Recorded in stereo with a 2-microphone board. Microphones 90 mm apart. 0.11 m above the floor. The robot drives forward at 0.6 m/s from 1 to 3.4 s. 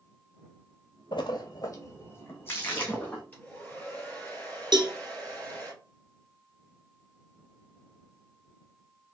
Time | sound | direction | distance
1.1 | a splash | 60° left (ahead or behind) | 0.6 m
3.3 | a hair dryer | 20° left (ahead or behind) | 2 m
4.7 | a cowbell | 55° right (ahead or behind) | 0.6 m